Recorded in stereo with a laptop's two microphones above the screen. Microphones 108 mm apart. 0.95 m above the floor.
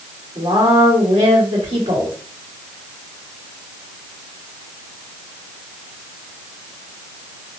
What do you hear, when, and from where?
0.3 s a woman speaking: 85° right, 2 m